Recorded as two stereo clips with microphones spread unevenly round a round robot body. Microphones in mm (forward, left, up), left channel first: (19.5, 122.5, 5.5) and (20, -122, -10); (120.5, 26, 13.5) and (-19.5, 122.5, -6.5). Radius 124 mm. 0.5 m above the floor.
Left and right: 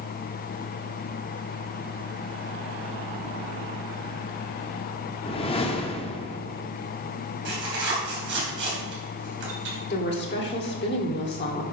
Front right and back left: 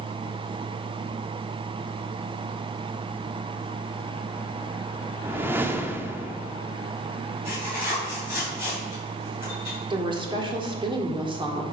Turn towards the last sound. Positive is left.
turn(degrees=115)